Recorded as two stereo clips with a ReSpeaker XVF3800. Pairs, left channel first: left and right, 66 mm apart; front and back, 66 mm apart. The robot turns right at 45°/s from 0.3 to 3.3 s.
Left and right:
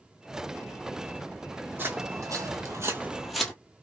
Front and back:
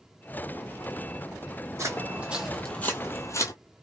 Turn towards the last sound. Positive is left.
turn(degrees=15)